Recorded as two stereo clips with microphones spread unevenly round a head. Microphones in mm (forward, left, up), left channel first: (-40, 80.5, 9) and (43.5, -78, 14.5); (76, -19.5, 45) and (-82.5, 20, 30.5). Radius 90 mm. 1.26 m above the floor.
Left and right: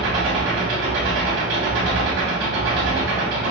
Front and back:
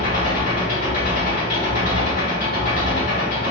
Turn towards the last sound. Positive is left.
turn(degrees=-55)